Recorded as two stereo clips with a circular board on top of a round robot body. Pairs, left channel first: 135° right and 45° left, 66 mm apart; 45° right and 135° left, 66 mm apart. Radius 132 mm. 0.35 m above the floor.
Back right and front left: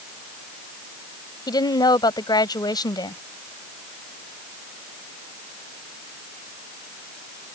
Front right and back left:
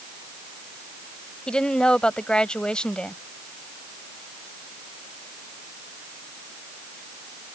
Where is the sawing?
No sawing in this recording.